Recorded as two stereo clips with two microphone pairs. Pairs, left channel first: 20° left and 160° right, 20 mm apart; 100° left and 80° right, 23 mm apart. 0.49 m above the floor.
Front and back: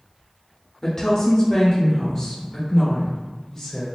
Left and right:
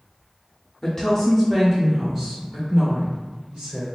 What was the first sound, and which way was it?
A woman speaking, 55° left.